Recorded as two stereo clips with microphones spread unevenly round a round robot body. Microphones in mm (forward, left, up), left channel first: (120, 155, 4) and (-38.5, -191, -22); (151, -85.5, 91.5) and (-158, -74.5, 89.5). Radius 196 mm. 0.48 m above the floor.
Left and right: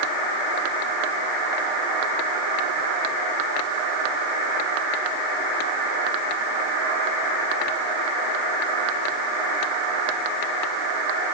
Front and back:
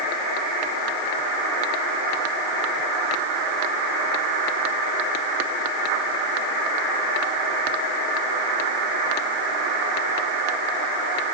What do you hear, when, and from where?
Only background noise.